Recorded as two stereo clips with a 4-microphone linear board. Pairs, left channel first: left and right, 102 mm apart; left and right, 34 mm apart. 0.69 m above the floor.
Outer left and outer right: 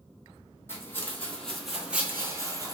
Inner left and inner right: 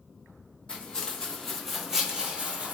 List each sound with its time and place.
0.7 s footsteps: 25° left (ahead or behind), 1.1 m; by 2.7 s 40° right (ahead or behind), 0.9 m